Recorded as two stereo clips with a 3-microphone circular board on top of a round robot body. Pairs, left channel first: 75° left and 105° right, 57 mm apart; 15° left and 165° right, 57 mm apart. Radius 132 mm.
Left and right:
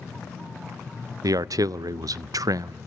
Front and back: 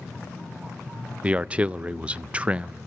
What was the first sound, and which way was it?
A man speaking, 95° right.